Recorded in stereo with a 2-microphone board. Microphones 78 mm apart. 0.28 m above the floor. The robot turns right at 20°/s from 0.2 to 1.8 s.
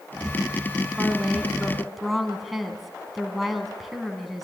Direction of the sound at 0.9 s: 15° right (ahead or behind).